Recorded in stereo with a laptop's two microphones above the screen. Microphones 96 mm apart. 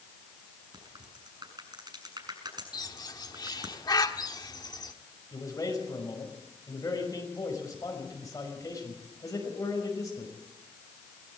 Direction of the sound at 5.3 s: 35° left (ahead or behind).